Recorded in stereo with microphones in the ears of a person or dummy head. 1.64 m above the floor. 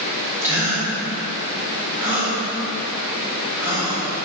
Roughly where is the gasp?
Centre.